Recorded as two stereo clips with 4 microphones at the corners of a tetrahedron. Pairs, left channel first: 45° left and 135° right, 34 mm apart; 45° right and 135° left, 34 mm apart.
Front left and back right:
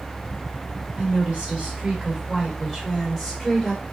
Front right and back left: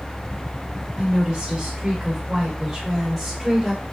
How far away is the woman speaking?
About 1.6 m.